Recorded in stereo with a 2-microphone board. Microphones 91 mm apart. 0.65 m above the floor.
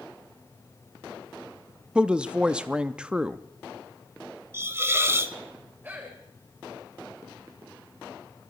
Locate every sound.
1.9 s a woman speaking: 10° right (ahead or behind), 0.5 m
4.5 s a hiss: 25° right (ahead or behind), 0.6 m
5.8 s a man speaking: 20° right (ahead or behind), 3.5 m